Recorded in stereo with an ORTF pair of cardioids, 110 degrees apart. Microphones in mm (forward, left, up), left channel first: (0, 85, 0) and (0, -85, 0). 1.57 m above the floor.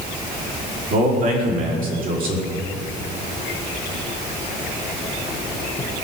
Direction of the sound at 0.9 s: 60° right.